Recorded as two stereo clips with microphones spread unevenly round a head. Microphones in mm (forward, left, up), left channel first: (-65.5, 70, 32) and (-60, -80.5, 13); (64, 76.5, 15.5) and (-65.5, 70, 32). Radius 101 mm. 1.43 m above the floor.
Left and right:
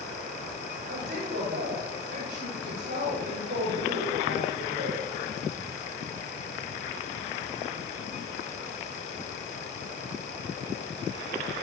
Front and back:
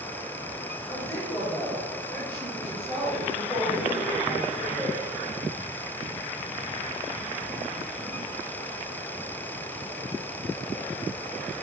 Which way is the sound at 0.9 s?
75° right.